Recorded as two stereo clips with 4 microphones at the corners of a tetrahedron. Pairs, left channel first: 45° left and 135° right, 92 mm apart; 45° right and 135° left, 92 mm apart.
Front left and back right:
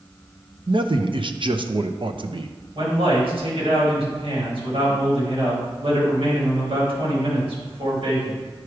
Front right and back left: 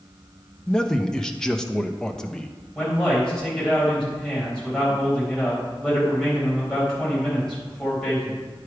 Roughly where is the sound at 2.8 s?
Behind right.